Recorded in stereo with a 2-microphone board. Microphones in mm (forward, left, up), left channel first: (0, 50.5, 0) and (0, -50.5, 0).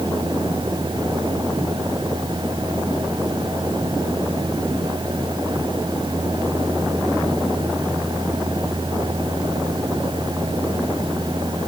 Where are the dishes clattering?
I don't hear dishes clattering.